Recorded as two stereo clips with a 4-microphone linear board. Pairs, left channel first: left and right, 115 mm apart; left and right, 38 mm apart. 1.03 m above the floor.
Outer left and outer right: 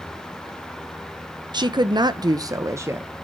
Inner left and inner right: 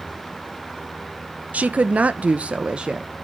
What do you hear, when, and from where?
1.5 s a woman speaking: 35° right (ahead or behind), 0.8 m; by 3.1 s 20° right (ahead or behind), 0.8 m